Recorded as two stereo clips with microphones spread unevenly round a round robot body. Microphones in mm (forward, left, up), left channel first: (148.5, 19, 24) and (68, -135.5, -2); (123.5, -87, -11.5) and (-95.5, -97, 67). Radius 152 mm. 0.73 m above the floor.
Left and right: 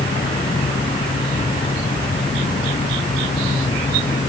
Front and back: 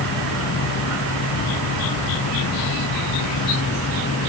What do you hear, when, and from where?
Only background noise.